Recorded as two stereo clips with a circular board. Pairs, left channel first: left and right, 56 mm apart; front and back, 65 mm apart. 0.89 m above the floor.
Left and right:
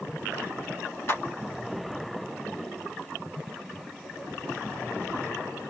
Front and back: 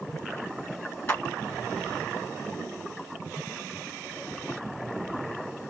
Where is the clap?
55° left, 1.4 m.